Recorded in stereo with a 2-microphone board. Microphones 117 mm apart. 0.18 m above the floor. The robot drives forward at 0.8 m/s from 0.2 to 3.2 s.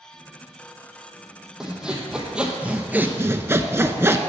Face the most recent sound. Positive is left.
turn(degrees=-20)  # may be behind; listen again after turning